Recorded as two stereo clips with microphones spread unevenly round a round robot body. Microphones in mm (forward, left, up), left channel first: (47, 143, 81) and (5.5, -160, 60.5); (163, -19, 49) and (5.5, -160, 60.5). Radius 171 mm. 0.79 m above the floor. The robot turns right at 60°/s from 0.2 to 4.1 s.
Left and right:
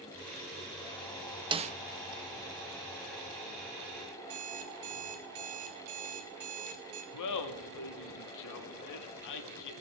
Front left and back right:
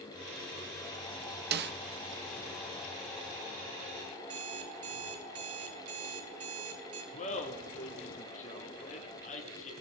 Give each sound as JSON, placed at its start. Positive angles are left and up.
{"t": 1.5, "sound": "a snare drum", "azimuth_deg": -165, "distance_m": 0.5}
{"t": 4.2, "sound": "an alarm clock", "azimuth_deg": -130, "distance_m": 1.8}
{"t": 7.1, "sound": "laughter", "azimuth_deg": 100, "distance_m": 1.9}